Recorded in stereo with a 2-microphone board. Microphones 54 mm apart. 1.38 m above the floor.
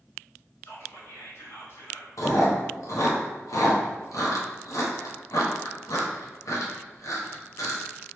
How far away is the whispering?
About 1.4 m.